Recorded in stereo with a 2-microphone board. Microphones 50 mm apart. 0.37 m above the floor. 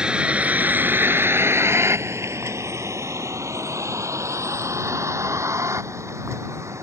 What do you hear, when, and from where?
0.0 s a vehicle: 20° right (ahead or behind); by 6.8 s 75° right (ahead or behind)